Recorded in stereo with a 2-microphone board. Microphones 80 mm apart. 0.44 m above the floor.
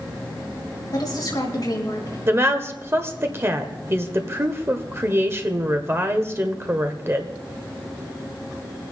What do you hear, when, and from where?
0.9 s a woman speaking: 55° left (ahead or behind), 4 m
2.3 s a woman speaking: 30° right (ahead or behind), 1.1 m